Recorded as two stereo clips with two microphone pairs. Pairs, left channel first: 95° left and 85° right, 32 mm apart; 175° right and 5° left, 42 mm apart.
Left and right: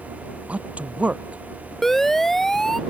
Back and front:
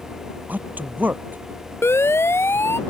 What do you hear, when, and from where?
0.5 s a man speaking: 40° right
1.8 s a siren: 175° left